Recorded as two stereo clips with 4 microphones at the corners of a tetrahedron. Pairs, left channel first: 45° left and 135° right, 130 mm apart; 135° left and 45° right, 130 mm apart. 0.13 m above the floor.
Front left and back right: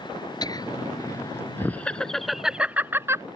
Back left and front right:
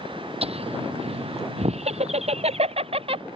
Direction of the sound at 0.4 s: 10° right.